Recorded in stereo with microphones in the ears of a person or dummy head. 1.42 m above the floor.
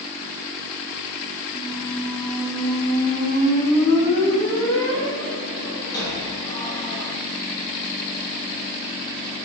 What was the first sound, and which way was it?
A squeak, 20° left (ahead or behind).